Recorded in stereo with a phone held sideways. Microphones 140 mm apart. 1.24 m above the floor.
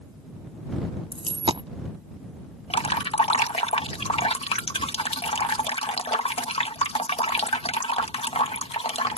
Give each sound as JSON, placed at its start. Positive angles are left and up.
{"t": 1.1, "sound": "a dropped coin", "side_deg": -40}
{"t": 2.7, "sound": "dripping", "side_deg": 45}